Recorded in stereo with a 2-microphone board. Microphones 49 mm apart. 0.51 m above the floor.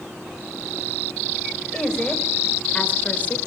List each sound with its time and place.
1.7 s a woman speaking: 15° left (ahead or behind), 3 m; by 3.4 s 35° left (ahead or behind), 2 m